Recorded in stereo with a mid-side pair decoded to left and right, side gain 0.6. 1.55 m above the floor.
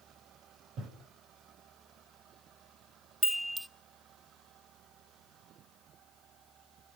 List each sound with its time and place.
0.8 s breathing: 55° right, 7.5 m
3.2 s a chime: 15° right, 0.9 m